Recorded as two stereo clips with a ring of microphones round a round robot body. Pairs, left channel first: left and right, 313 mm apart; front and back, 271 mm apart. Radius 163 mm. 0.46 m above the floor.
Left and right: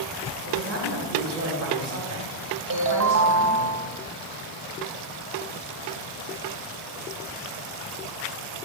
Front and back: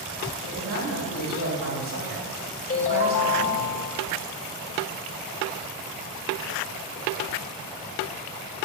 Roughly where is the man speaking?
Behind right.